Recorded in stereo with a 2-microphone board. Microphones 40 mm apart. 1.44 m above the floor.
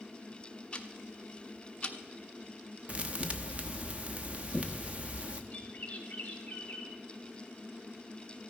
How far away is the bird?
About 2 m.